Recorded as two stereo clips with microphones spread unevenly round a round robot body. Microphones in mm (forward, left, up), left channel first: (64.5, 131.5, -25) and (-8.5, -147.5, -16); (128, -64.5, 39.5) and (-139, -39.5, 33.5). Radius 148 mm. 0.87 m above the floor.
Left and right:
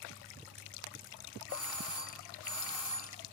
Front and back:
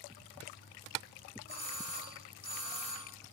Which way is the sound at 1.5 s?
165° left.